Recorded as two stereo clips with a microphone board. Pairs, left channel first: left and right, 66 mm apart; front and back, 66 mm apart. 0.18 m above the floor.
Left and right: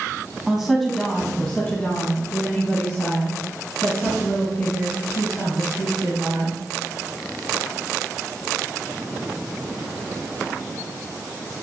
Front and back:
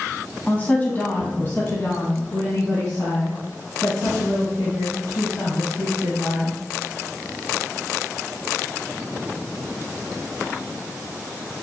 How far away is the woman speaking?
About 1.3 m.